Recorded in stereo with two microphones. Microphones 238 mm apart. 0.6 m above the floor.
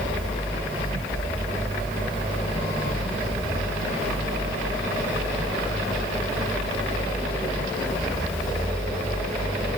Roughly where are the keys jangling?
No keys jangling in this recording.